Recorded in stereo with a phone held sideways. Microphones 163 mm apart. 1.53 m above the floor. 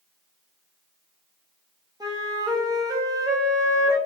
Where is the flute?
25° right (ahead or behind), 2.5 m.